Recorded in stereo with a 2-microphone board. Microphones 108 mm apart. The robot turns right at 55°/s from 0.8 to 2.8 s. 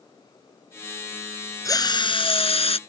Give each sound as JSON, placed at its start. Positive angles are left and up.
{"t": 1.6, "sound": "a drill", "azimuth_deg": 35}